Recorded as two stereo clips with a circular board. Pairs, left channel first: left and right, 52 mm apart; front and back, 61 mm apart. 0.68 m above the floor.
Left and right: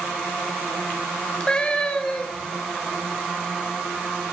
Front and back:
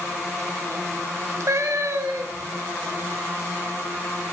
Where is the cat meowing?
160° left, 1.1 m.